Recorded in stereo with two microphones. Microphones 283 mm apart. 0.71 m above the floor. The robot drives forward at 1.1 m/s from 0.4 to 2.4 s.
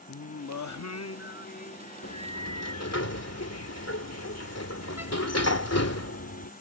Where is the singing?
60° left (ahead or behind); by 3.0 s 20° left (ahead or behind).